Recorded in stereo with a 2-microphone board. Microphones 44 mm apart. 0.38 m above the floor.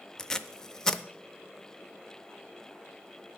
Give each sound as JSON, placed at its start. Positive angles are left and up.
{"t": 0.2, "sound": "tape being pulled", "side_deg": 15, "distance_m": 0.5}